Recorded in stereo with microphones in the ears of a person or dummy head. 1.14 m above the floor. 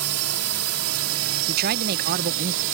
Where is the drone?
75° right (ahead or behind); by 2.8 s 70° right (ahead or behind).